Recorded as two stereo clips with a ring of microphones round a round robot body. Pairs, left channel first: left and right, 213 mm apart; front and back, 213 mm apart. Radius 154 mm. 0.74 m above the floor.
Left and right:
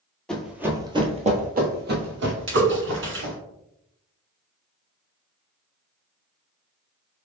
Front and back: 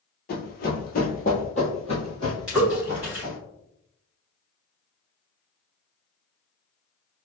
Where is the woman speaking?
I don't hear a woman speaking.